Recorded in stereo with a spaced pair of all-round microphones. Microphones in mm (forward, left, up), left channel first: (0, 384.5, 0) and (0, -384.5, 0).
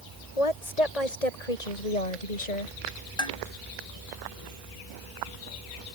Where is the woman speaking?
50° left (ahead or behind); by 2.8 s 65° left (ahead or behind).